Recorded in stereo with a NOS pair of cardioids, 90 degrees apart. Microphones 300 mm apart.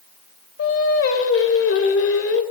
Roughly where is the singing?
Ahead left.